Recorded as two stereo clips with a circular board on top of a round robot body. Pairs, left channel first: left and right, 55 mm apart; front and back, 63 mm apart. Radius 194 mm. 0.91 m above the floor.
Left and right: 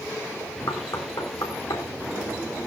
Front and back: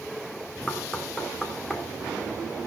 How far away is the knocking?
About 3 m.